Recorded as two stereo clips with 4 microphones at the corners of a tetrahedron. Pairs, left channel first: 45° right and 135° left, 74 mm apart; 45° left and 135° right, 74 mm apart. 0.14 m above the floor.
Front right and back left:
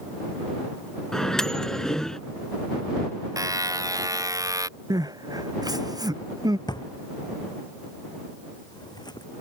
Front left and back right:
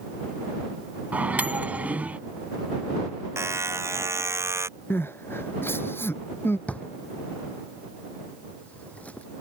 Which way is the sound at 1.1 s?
115° right.